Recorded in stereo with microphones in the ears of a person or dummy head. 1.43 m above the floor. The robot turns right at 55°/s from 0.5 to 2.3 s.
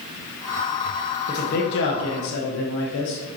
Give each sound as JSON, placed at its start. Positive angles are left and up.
{"t": 1.3, "sound": "a man speaking", "azimuth_deg": 35, "distance_m": 1.3}